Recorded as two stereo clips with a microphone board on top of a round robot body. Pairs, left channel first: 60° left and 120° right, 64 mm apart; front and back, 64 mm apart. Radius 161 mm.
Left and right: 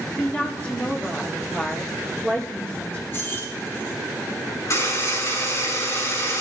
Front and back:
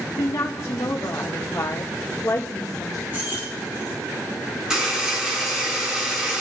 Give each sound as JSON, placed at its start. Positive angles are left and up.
{"t": 0.2, "sound": "a woman speaking", "azimuth_deg": -10, "distance_m": 2.0}
{"t": 3.1, "sound": "keys jangling", "azimuth_deg": 120, "distance_m": 7.5}
{"t": 4.7, "sound": "a buzzer", "azimuth_deg": 100, "distance_m": 7.0}